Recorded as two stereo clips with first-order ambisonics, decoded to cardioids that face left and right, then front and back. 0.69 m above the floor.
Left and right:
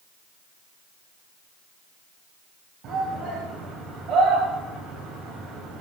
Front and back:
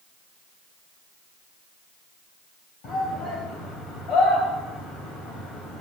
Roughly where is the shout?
Ahead right.